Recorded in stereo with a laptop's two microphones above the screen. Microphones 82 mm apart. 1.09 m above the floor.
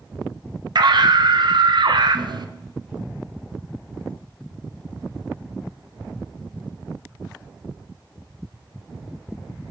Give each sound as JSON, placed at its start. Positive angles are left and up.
{"t": 0.8, "sound": "a scream", "side_deg": -60, "distance_m": 0.5}